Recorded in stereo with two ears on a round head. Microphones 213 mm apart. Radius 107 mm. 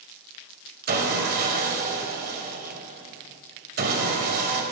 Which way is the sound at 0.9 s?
45° right (ahead or behind).